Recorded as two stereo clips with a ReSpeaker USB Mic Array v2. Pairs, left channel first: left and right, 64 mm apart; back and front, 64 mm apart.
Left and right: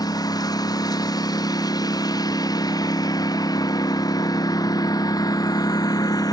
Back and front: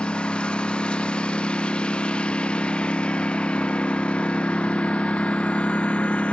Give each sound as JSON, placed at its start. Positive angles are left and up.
{"t": 0.0, "sound": "a lawn mower", "azimuth_deg": 105}